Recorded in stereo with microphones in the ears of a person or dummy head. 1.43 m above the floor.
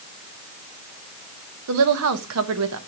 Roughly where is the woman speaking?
Right.